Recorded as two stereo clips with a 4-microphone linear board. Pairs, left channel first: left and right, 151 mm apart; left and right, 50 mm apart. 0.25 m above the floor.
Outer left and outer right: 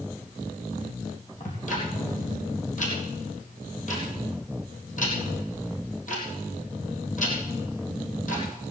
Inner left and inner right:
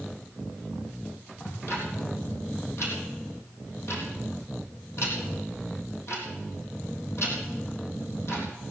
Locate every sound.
1.4 s ticking: 55° left (ahead or behind), 3.5 m